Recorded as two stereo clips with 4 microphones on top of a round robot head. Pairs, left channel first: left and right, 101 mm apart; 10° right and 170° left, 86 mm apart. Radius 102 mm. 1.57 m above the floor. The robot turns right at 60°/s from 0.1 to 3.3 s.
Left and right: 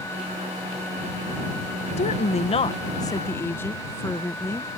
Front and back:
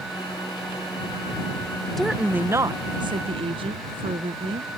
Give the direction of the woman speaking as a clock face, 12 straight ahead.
9 o'clock.